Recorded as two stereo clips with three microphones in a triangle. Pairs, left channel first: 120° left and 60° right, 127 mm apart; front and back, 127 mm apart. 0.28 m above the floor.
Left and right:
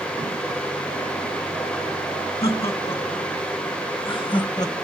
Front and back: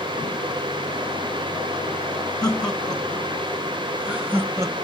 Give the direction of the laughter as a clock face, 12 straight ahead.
9 o'clock.